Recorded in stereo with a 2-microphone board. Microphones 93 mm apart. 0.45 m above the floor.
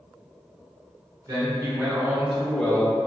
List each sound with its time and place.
1.3 s a man speaking: 35° right (ahead or behind), 0.9 m; by 3.0 s 15° left (ahead or behind), 0.9 m